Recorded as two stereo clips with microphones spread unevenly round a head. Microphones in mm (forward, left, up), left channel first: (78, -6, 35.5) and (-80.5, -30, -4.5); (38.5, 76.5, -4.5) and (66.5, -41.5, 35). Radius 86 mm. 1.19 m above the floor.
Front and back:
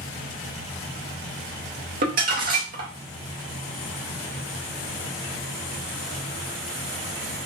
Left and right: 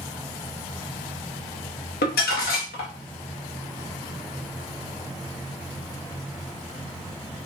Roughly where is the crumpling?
Behind left.